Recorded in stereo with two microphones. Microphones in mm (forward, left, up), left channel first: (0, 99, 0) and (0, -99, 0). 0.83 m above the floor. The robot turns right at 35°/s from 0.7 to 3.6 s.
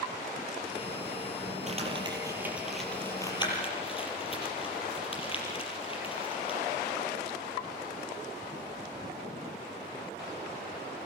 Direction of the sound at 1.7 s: 35° right (ahead or behind).